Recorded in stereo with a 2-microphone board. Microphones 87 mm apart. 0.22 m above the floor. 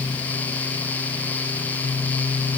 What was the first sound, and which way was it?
Only background noise.